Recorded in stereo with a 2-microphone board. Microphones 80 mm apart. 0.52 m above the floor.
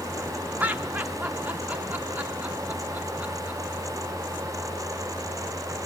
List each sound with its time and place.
0.6 s laughter: 20° right (ahead or behind), 0.6 m